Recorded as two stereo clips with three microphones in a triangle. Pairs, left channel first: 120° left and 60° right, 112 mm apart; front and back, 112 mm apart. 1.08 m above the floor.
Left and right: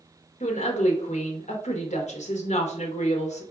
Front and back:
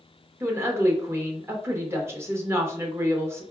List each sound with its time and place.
0.4 s a woman speaking: 110° left, 1.1 m